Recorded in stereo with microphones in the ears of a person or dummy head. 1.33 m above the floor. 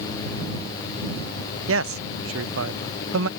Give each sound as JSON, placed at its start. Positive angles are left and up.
{"t": 1.7, "sound": "a man speaking", "side_deg": -70}